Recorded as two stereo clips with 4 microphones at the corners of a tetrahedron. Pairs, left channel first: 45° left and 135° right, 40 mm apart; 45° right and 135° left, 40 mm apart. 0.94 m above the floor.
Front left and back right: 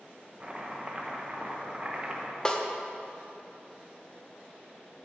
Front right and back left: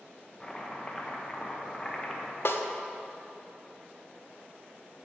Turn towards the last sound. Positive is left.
turn(degrees=-25)